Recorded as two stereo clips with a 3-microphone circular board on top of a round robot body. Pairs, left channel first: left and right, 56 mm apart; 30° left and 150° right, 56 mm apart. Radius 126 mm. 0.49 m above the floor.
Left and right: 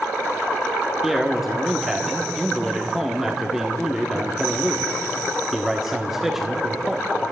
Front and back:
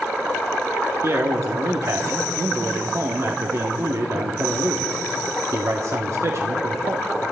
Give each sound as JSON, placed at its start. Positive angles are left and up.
{"t": 1.0, "sound": "a man speaking", "azimuth_deg": -170, "distance_m": 1.2}